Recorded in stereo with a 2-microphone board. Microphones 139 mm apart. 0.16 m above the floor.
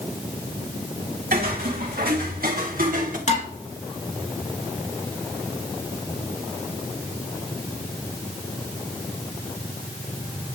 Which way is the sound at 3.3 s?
50° left (ahead or behind).